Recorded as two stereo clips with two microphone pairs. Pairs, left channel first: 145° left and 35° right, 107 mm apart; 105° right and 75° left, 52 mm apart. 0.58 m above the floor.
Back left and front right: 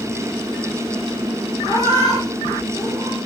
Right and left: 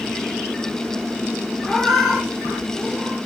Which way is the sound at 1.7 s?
10° right.